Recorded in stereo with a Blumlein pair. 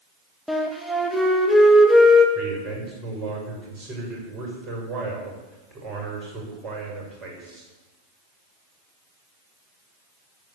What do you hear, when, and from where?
0.5 s a flute: straight ahead, 1.6 m
2.4 s a man speaking: 35° right, 6 m